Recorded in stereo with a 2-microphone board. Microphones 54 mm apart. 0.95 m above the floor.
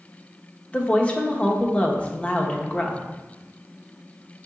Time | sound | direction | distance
0.7 | a woman speaking | 20° left (ahead or behind) | 1.0 m